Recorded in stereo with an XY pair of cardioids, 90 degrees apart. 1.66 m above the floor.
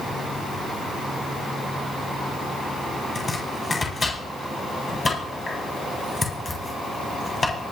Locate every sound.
3.1 s chopping: 30° left, 8 m